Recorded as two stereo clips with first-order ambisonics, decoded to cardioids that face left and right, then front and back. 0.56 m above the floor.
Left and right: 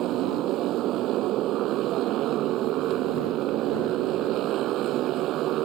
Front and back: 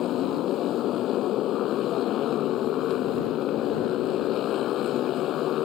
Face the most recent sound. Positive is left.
turn(degrees=-50)